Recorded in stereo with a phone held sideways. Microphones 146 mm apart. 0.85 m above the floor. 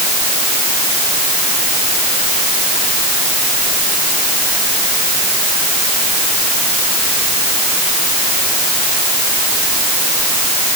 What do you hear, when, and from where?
Only background noise.